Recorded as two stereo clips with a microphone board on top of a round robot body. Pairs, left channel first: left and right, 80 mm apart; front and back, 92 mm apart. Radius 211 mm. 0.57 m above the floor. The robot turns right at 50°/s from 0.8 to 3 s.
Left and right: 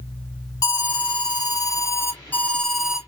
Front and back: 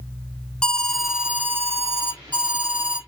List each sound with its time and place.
0.6 s an alarm: 80° left, 2 m; by 3.0 s 170° right, 2 m